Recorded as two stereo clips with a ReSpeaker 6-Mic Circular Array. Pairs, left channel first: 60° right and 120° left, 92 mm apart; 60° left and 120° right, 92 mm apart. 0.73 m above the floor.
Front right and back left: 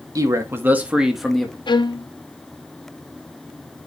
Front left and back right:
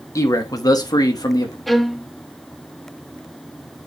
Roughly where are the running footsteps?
No running footsteps in this recording.